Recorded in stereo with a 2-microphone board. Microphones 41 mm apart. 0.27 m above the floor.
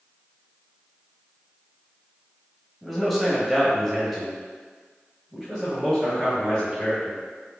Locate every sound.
2.8 s a man speaking: centre (ahead or behind), 1.2 m